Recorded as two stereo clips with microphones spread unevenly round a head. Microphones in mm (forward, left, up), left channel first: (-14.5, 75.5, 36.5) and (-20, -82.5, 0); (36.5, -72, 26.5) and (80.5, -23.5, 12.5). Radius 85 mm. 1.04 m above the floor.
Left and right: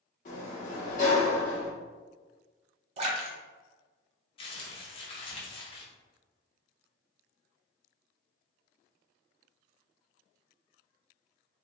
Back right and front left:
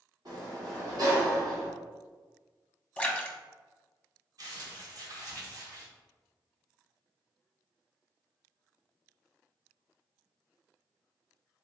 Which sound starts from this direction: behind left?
A sliding door, at 0.2 s.